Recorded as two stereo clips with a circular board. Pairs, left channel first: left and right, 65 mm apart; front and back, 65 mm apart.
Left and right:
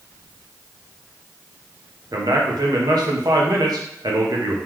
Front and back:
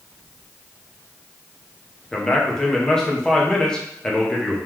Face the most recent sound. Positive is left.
turn(degrees=-80)